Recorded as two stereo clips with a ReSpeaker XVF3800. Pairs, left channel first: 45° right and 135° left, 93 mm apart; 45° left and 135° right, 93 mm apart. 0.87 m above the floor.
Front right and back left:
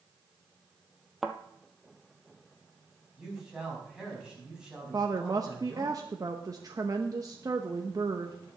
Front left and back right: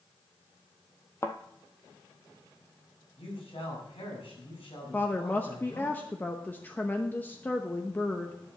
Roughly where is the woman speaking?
Left.